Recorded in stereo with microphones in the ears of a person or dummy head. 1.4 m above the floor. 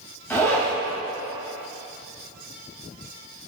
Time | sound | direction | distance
0.3 | a zipper | 15° left (ahead or behind) | 2 m